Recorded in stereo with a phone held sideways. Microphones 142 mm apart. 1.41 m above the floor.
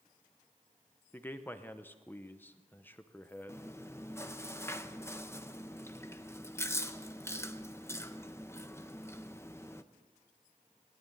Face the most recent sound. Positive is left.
turn(degrees=20)  # may be behind; listen again after turning